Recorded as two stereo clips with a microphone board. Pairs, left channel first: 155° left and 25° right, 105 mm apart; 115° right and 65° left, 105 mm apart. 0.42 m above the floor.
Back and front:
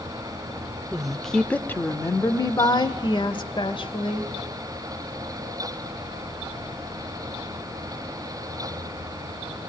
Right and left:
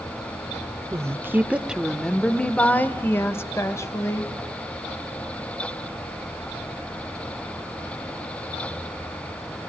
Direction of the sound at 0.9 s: 50° left.